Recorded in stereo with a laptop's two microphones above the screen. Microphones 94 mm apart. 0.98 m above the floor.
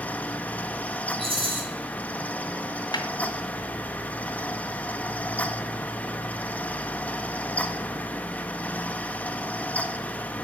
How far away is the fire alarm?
No fire alarm in this recording.